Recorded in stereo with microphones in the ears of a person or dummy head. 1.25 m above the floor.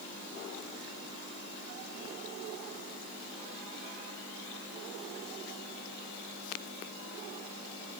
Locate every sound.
Only background noise.